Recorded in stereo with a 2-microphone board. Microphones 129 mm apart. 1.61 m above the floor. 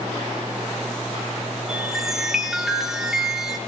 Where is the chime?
5° right (ahead or behind), 3.5 m.